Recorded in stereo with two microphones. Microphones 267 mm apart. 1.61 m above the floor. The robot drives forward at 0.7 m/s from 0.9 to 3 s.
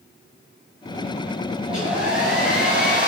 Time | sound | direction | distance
1.6 | a hair dryer | 5° right (ahead or behind) | 9.5 m